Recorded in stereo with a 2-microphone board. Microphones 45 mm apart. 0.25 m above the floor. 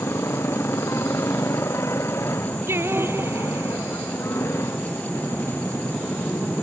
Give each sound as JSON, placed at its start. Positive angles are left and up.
{"t": 0.0, "sound": "a motorcycle", "side_deg": 90}
{"t": 2.7, "sound": "singing", "side_deg": -65}